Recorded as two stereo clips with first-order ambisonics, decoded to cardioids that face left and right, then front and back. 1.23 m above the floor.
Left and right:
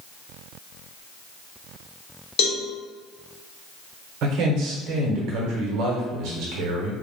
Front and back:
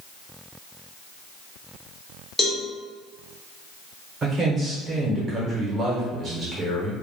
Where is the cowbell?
80° left, 0.7 m.